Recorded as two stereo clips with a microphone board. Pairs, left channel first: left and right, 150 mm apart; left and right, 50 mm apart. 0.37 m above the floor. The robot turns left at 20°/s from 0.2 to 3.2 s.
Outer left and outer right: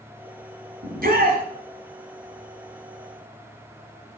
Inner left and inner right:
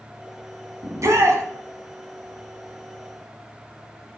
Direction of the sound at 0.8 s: 70° right (ahead or behind).